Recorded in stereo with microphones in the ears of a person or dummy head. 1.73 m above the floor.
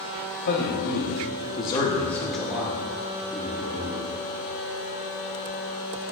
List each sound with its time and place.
0.5 s a man speaking: 60° left (ahead or behind), 1.8 m; by 4.1 s 30° right (ahead or behind), 2.5 m